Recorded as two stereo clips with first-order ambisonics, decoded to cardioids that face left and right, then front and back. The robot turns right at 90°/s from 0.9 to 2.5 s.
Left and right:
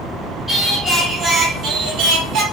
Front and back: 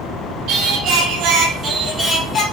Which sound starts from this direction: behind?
Singing, at 0.5 s.